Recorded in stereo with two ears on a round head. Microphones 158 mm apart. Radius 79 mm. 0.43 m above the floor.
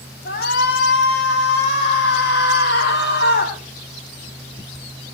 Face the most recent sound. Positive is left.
turn(degrees=60)  # may be behind; listen again after turning